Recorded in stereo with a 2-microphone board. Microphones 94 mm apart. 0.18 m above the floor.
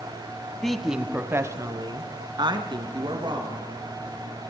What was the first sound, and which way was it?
A woman speaking, 5° left (ahead or behind).